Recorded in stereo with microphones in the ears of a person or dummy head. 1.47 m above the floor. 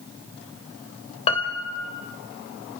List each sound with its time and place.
1.3 s a piano: 30° left (ahead or behind), 1.9 m